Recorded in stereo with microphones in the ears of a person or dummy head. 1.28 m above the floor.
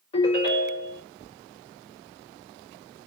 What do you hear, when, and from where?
0.1 s a ringtone: 30° left (ahead or behind), 1.9 m